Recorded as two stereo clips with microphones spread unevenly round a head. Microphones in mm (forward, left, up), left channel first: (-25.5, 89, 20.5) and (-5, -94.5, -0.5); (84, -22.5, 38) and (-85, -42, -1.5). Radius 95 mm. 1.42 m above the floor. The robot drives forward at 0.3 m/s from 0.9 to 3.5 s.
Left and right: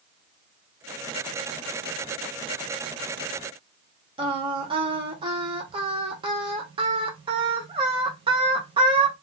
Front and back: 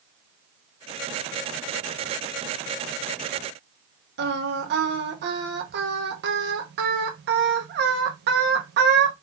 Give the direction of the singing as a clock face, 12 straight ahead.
5 o'clock.